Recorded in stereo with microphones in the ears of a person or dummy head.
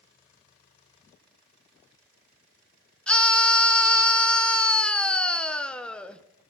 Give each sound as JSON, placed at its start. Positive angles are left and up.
{"t": 3.1, "sound": "a scream", "side_deg": 5, "distance_m": 1.0}